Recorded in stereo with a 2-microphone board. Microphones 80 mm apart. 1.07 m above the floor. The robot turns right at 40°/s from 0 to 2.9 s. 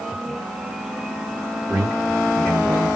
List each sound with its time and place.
1.7 s a man speaking: 20° right, 1.4 m; by 2.9 s 25° left, 1.4 m